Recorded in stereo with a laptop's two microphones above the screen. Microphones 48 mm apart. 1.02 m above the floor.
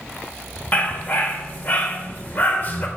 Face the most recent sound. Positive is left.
turn(degrees=40)  # may be behind; listen again after turning